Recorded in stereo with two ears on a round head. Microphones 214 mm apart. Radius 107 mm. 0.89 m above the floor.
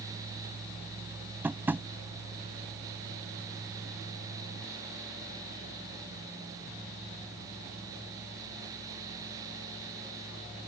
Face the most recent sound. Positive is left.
turn(degrees=-10)  # may be behind; listen again after turning